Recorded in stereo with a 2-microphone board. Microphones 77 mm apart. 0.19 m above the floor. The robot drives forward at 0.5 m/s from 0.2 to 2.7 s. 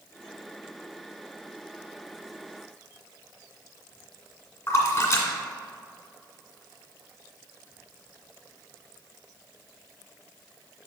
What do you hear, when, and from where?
4.7 s a splash: 40° left (ahead or behind), 1.9 m